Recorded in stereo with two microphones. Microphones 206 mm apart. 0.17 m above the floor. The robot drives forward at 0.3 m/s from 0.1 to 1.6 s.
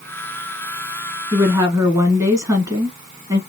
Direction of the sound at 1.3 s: 15° right (ahead or behind).